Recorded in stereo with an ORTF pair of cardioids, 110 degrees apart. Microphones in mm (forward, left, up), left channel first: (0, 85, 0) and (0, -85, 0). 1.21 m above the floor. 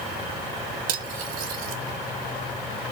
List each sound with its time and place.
0.9 s cutlery clinking: 60° right, 0.8 m